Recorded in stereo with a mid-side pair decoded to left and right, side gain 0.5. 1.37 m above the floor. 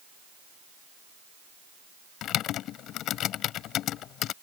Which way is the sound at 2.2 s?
70° left.